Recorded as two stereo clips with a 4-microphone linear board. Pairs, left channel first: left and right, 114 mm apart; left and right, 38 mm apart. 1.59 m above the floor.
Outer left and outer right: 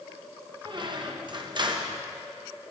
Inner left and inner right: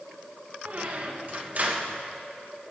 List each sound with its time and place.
0.7 s a squeak: 40° right (ahead or behind), 1.0 m